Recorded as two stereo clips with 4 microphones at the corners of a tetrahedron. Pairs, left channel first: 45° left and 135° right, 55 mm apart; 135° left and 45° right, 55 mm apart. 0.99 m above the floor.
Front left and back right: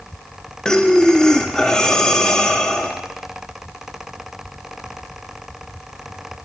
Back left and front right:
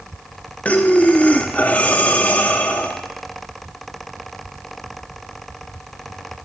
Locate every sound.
0.7 s breathing: 110° left, 0.6 m